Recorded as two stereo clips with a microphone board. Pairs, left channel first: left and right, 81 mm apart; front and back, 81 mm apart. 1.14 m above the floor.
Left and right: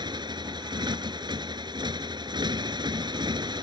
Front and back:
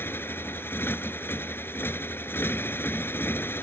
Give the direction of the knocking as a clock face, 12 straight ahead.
I don't hear knocking.